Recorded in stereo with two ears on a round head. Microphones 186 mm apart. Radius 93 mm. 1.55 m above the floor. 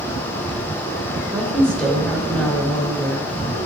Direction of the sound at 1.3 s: 5° left (ahead or behind).